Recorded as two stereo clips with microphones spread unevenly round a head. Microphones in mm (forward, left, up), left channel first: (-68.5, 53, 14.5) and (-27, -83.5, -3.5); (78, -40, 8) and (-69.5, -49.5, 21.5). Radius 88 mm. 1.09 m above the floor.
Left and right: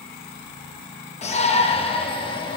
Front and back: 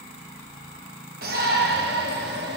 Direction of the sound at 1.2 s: 150° left.